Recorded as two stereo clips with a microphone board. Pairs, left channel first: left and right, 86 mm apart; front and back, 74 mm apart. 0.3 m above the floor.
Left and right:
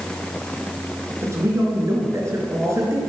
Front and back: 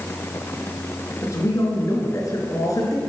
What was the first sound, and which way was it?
A man speaking, 35° right.